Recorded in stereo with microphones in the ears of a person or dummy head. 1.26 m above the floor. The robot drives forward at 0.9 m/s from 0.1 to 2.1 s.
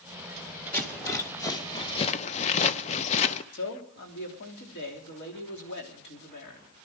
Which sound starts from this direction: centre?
A rattle, at 0.7 s.